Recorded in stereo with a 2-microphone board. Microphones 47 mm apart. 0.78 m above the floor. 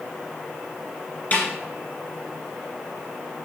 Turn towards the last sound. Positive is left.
turn(degrees=35)  # may be behind; listen again after turning